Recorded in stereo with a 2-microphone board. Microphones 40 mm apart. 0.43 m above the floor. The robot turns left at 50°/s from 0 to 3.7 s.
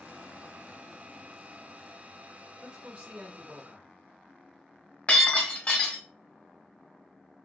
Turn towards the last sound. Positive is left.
turn(degrees=35)  # may be behind; listen again after turning